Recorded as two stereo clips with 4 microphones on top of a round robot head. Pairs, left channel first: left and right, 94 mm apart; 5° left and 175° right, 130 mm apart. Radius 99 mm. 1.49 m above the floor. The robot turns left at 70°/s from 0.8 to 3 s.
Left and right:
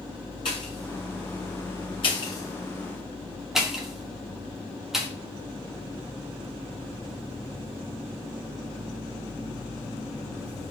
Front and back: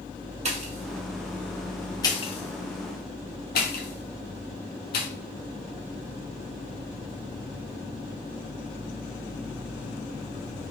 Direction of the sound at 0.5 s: 150° left.